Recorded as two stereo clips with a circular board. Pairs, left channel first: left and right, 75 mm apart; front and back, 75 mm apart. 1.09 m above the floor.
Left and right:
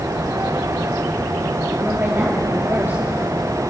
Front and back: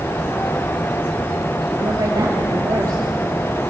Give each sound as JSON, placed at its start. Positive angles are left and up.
{"t": 1.8, "sound": "a woman speaking", "azimuth_deg": -150, "distance_m": 2.0}